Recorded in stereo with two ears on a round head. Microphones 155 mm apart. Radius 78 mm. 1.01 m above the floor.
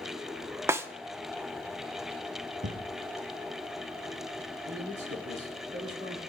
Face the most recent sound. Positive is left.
turn(degrees=-70)  # may be behind; listen again after turning